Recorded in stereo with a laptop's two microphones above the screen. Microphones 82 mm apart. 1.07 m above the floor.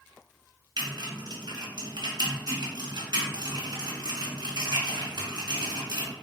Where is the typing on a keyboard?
55° right (ahead or behind), 0.9 m.